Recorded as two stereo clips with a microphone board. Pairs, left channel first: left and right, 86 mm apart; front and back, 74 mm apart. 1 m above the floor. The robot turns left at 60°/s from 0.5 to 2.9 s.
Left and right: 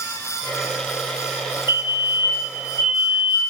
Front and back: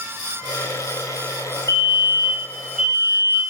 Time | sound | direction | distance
1.7 | a fire alarm | 35° right | 3 m